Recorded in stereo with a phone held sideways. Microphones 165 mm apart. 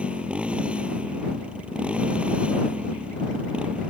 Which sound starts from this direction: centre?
A motorcycle, at 0.0 s.